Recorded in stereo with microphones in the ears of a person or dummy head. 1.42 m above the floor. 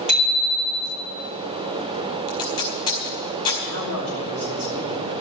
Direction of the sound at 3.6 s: 50° right (ahead or behind).